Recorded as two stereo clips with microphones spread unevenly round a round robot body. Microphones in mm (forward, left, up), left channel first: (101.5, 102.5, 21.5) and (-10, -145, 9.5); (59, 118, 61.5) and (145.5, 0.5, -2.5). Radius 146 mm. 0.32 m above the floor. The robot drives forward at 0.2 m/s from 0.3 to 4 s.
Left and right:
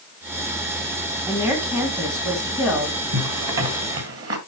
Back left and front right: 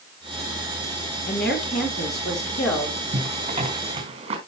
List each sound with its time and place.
1.3 s a woman speaking: 165° left, 2.5 m
3.1 s a zipper: 85° right, 3 m; by 4.4 s 90° right, 3 m